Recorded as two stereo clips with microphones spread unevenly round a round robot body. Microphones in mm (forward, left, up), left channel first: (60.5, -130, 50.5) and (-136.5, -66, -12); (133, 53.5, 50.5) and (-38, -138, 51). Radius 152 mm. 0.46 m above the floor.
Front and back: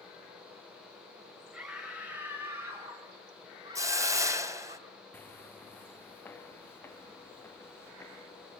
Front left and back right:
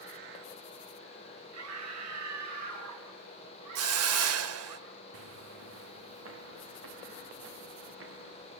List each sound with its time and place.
1.5 s a scream: 115° right, 5 m; by 4.8 s 140° right, 5.5 m
3.8 s a hiss: 135° right, 2.5 m
5.1 s footsteps: 95° right, 3 m